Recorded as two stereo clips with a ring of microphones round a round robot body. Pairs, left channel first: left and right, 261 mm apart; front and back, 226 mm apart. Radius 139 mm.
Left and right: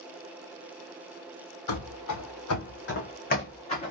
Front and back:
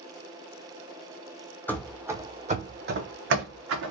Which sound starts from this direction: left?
Running footsteps, at 1.7 s.